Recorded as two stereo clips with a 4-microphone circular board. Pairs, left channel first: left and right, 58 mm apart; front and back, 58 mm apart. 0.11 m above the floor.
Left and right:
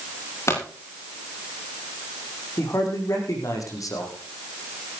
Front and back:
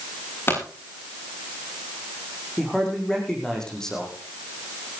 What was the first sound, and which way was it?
A pop, 50° left.